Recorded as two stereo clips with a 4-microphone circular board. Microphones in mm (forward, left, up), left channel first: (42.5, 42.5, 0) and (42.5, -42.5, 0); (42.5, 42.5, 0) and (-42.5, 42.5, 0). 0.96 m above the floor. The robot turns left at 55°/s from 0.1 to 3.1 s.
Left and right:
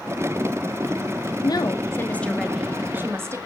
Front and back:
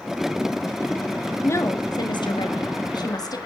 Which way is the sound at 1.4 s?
60° left.